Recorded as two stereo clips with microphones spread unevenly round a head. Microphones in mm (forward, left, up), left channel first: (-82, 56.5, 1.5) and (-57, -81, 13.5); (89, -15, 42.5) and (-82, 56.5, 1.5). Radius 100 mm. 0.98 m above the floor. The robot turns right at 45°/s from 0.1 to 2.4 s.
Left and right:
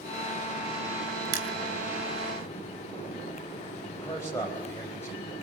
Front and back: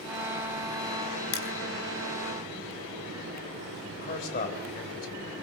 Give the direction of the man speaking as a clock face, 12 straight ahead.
11 o'clock.